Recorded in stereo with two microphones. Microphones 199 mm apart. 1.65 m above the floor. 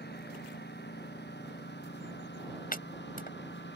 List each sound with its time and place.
0.0 s a lawn mower: 60° left (ahead or behind); by 3.8 s 65° left (ahead or behind)
2.7 s chopping: 50° left (ahead or behind)